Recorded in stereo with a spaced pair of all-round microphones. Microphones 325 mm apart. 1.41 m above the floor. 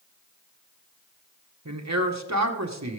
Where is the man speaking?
55° right (ahead or behind), 1.3 m.